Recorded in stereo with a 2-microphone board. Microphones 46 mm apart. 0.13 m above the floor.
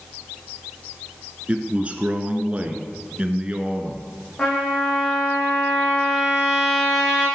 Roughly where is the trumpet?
Left.